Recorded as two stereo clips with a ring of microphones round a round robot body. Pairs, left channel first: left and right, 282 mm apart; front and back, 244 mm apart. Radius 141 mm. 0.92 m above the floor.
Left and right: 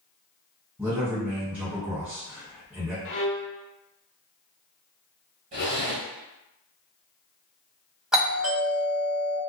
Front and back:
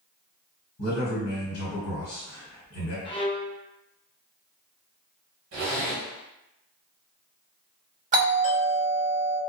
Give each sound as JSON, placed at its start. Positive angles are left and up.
{"t": 0.8, "sound": "a man speaking", "azimuth_deg": -5, "distance_m": 1.6}
{"t": 3.0, "sound": "a violin", "azimuth_deg": 65, "distance_m": 0.6}
{"t": 5.5, "sound": "a zipper", "azimuth_deg": -150, "distance_m": 1.0}
{"t": 8.1, "sound": "a doorbell", "azimuth_deg": -175, "distance_m": 1.3}